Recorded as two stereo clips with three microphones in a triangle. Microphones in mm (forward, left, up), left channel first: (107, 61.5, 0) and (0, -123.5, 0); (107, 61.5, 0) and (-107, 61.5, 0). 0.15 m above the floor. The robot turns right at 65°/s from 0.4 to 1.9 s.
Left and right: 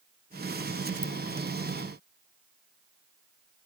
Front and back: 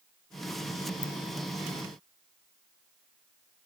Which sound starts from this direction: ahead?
A ringtone, at 1.0 s.